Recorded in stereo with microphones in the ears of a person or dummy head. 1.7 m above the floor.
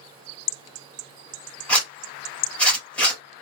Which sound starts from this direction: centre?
A zipper, at 1.7 s.